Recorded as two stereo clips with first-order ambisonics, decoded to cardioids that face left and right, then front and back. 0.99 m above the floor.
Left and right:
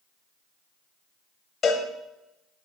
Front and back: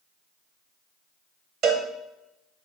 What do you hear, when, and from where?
1.6 s a cowbell: 150° left, 1.0 m